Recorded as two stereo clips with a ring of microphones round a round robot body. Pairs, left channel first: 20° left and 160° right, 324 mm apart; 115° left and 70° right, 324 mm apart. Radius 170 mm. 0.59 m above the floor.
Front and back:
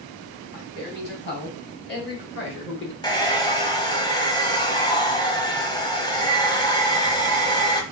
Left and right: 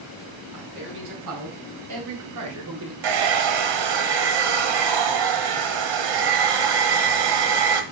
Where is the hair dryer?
55° right, 1.0 m.